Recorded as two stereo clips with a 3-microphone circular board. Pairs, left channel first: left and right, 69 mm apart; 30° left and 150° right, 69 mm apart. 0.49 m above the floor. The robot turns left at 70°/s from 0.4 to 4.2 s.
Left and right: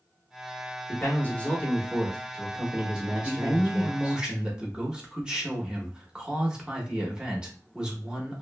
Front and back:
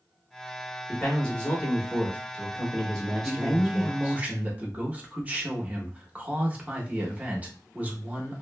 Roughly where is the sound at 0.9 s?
Left.